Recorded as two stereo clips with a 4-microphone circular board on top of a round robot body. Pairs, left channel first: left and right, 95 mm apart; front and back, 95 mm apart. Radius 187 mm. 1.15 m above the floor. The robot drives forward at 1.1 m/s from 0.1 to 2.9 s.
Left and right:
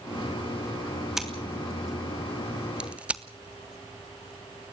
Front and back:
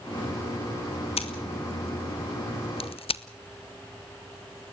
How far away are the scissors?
About 3 m.